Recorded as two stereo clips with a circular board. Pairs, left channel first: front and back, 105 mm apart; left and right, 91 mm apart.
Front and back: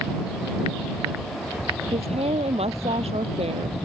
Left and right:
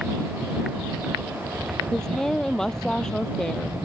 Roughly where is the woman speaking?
Behind.